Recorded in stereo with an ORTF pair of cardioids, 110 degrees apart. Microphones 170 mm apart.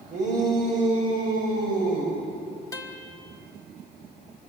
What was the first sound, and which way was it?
A shout, 45° right.